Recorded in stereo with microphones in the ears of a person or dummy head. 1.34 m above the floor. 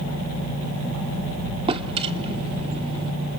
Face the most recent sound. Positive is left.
turn(degrees=-25)  # may be behind; listen again after turning